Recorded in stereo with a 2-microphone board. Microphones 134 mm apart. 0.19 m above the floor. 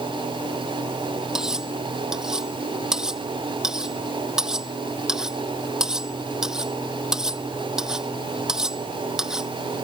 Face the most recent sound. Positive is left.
turn(degrees=-5)  # may be behind; listen again after turning